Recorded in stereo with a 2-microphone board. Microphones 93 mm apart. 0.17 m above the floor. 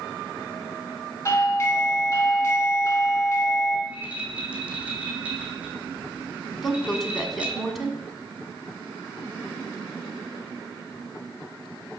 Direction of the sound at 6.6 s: Centre (ahead or behind).